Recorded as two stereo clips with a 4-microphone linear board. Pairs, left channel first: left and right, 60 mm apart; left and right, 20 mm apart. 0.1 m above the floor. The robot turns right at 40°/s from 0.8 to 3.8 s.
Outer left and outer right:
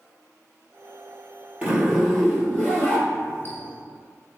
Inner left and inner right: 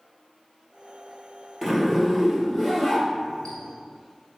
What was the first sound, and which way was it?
A zipper, 20° right.